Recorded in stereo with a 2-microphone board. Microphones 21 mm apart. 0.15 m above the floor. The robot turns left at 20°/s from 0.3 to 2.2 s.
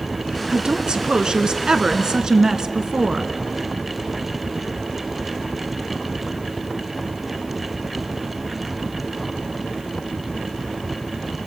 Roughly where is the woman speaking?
Right.